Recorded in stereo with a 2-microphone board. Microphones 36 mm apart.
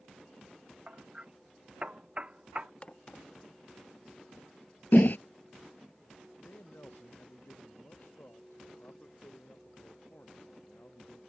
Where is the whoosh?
60° left (ahead or behind).